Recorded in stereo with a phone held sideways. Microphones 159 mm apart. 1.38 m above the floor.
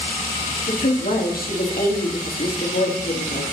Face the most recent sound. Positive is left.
turn(degrees=75)  # may be behind; listen again after turning